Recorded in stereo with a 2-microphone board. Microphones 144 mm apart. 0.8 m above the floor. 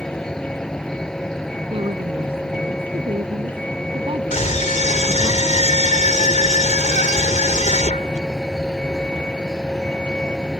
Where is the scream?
60° left (ahead or behind).